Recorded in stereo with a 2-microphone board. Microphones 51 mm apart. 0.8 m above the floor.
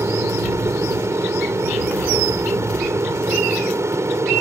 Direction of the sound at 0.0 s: 65° right (ahead or behind).